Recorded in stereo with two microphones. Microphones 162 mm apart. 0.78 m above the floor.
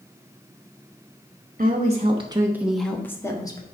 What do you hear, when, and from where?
1.6 s a woman speaking: 55° right (ahead or behind), 1.3 m; by 3.6 s 25° left (ahead or behind), 1.8 m